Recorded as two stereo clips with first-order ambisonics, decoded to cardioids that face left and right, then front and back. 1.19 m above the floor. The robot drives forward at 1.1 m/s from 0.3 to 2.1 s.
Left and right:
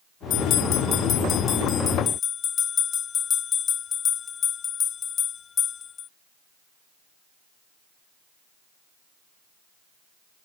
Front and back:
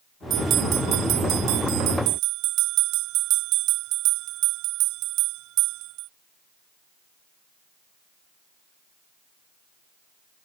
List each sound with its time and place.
0.3 s a bell: 125° left; by 6.1 s 155° left